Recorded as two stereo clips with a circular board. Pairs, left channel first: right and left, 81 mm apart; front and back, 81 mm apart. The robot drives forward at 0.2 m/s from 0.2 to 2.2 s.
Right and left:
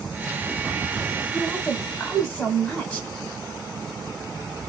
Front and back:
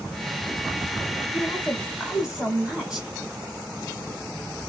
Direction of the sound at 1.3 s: 90° right.